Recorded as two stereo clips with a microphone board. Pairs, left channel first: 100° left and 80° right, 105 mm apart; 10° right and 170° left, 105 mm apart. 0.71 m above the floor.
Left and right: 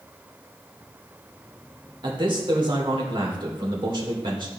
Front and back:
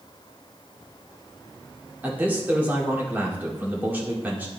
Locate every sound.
2.0 s a man speaking: 120° right, 1.7 m